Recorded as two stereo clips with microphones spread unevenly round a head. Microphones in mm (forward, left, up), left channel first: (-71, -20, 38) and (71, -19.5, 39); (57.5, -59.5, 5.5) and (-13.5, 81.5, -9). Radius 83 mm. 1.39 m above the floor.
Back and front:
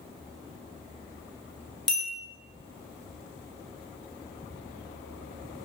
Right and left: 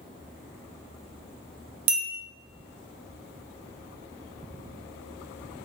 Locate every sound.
1.9 s a bell: 90° left, 0.6 m